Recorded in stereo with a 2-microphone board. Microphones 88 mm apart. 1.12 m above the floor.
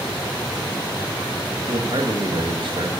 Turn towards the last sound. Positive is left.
turn(degrees=-60)  # may be behind; listen again after turning